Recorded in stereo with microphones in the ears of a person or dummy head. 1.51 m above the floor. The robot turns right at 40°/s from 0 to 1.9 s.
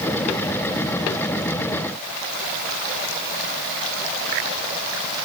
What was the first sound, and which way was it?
Only background noise.